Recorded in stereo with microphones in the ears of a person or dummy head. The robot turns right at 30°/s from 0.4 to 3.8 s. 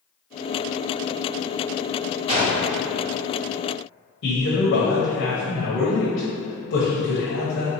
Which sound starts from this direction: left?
A man speaking, at 4.2 s.